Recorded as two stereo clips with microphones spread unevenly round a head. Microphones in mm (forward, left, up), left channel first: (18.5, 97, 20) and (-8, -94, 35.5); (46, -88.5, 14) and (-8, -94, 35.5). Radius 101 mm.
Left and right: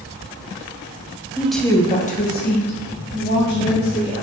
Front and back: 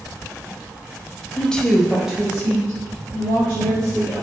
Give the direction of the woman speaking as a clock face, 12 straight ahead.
1 o'clock.